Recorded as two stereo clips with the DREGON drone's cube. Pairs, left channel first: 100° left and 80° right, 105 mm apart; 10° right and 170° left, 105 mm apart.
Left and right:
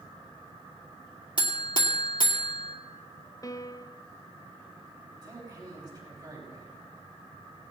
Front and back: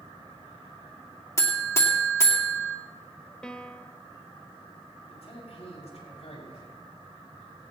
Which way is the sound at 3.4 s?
70° left.